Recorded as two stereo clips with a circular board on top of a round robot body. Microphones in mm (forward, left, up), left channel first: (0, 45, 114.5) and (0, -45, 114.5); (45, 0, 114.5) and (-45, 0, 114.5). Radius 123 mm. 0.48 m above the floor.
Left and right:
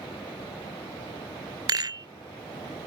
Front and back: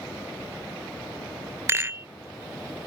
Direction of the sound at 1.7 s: 120° right.